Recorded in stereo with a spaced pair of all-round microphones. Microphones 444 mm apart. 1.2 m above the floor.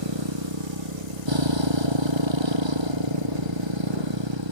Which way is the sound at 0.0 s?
80° right.